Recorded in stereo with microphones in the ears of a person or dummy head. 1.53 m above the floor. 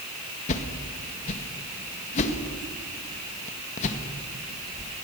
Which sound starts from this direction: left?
A whoosh, at 0.5 s.